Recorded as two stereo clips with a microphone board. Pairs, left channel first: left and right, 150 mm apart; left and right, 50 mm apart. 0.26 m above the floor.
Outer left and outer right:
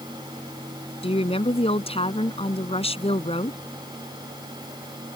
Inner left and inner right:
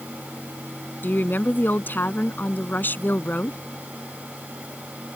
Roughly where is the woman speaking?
Left.